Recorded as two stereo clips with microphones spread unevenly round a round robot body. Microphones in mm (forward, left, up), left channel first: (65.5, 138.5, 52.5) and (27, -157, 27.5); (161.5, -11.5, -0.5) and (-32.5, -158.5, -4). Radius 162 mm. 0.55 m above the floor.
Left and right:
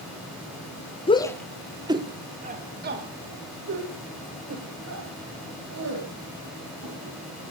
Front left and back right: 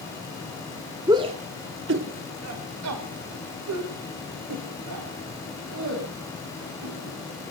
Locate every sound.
1.1 s a shout: 150° left, 1.0 m; by 7.1 s 140° right, 5.5 m